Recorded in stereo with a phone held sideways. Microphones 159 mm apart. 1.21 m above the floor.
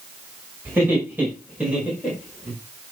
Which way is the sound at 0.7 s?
15° right (ahead or behind).